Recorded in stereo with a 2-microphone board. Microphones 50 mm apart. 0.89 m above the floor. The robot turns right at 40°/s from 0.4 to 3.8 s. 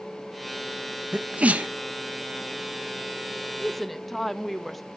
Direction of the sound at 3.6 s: 5° left (ahead or behind).